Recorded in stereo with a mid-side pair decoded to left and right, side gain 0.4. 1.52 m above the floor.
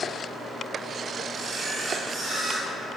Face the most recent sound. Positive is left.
turn(degrees=-65)